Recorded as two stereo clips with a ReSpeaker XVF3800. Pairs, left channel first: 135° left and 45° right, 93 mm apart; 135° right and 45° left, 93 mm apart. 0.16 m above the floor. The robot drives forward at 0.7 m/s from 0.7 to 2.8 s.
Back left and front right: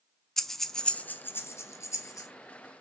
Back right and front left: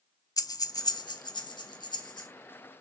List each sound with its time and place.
0.4 s breathing: 140° right, 0.5 m; by 2.3 s 170° right, 1.5 m